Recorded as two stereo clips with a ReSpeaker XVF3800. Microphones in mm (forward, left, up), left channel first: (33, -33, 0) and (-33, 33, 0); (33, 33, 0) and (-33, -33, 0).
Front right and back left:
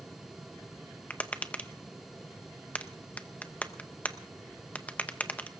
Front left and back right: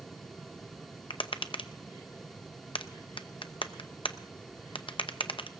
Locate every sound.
1.1 s tapping: 30° left, 0.7 m